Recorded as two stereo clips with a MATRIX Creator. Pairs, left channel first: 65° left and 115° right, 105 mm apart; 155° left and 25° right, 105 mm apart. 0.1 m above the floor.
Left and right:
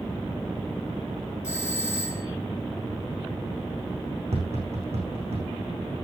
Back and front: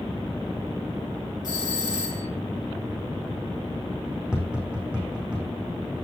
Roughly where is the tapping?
Right.